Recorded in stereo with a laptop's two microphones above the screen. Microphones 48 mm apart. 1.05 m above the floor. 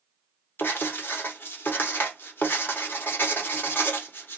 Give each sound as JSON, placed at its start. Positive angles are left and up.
{"t": 0.6, "sound": "writing", "side_deg": 50, "distance_m": 0.8}